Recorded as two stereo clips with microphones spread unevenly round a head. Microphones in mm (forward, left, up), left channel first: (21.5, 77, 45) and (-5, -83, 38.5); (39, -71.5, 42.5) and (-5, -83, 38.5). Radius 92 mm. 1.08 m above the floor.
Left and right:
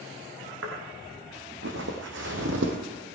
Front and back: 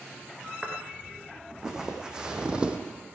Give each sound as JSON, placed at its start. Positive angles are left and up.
{"t": 0.6, "sound": "footsteps", "azimuth_deg": -85, "distance_m": 4.5}